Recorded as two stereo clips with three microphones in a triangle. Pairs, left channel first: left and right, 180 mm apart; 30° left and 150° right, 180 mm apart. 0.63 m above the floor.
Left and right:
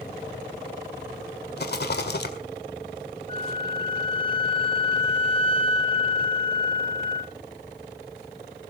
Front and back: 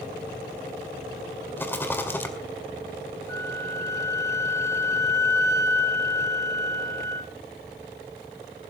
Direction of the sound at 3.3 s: 85° left.